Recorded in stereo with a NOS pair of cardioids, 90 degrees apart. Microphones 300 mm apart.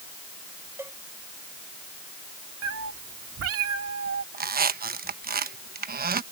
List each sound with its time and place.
0.8 s a cowbell: 10° right
2.6 s a cat meowing: 55° right
4.3 s a squeak: 35° right